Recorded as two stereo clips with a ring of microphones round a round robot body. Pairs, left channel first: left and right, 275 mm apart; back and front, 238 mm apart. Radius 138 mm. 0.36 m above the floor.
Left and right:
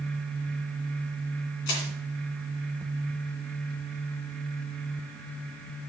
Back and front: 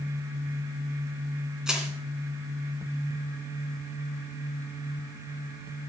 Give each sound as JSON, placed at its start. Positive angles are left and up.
{"t": 1.7, "sound": "crushing", "azimuth_deg": 85, "distance_m": 2.5}